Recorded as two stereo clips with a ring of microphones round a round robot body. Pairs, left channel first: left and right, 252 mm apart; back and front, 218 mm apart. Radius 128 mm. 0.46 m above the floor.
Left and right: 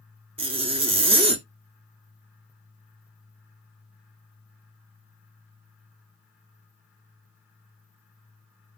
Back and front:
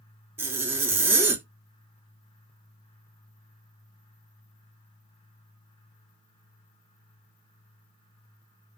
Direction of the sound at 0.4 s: 65° right.